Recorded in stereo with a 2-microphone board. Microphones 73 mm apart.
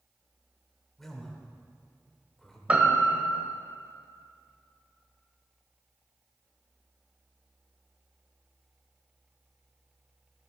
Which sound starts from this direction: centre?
A man speaking, at 1.0 s.